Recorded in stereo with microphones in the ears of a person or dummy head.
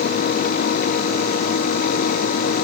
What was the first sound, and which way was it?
Only background noise.